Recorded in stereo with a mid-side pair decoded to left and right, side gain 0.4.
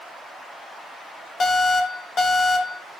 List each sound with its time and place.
1.4 s an alarm: 50° left, 5 m